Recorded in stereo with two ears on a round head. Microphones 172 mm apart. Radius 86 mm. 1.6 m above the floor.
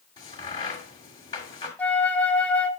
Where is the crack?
25° left (ahead or behind), 2 m.